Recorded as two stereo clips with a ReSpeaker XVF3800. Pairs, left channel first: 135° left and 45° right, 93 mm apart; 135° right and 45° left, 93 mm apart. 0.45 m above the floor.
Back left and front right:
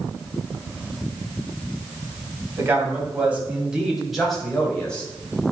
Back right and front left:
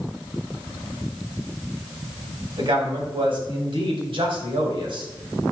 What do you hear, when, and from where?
2.6 s a man speaking: 20° left, 3 m; by 5.1 s 60° left, 3 m